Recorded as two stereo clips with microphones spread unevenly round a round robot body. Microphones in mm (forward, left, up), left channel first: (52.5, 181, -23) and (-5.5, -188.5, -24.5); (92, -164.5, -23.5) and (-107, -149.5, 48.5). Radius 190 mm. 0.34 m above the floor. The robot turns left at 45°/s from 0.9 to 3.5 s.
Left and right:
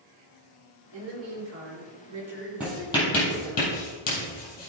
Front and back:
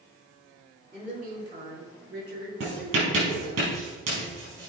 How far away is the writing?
About 4 m.